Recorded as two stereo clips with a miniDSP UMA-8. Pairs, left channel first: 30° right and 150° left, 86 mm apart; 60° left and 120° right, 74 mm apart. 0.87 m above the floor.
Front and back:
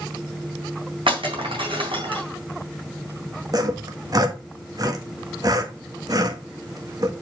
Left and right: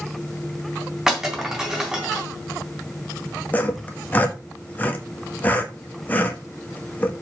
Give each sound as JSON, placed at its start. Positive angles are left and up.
{"t": 1.1, "sound": "breaking glass", "azimuth_deg": 155, "distance_m": 3.5}
{"t": 3.5, "sound": "sawing", "azimuth_deg": 120, "distance_m": 1.4}